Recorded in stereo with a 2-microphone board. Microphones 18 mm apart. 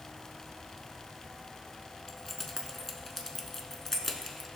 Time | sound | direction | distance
2.1 | keys jangling | 15° left (ahead or behind) | 0.9 m